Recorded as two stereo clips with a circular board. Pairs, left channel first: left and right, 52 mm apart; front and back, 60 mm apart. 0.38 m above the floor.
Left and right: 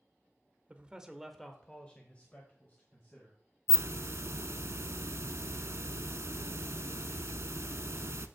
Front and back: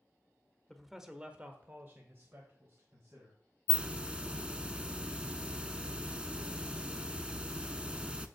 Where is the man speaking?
75° right, 0.8 m; by 3.4 s 140° left, 2.0 m.